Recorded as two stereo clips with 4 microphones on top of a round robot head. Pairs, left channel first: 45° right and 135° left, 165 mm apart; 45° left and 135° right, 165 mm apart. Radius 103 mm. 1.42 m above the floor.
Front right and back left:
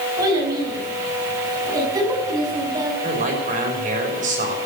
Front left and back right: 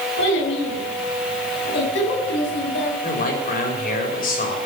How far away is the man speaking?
About 6.5 m.